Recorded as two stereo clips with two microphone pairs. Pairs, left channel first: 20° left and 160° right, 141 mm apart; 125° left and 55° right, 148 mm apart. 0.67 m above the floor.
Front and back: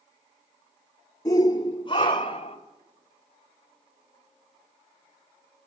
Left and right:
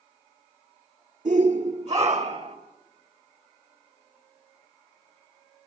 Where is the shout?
40° right, 1.8 m; by 2.6 s 25° right, 3 m.